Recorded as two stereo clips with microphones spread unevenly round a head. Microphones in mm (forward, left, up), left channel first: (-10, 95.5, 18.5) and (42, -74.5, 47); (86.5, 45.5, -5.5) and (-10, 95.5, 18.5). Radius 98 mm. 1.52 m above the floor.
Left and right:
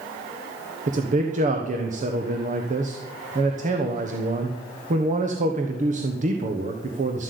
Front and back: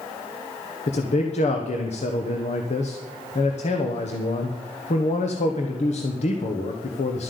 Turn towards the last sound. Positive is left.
turn(degrees=-20)